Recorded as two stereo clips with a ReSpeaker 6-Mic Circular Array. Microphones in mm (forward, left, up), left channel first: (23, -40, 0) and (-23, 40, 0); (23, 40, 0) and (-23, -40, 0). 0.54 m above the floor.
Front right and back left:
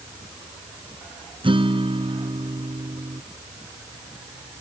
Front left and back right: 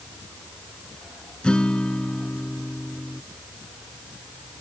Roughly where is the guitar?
Behind left.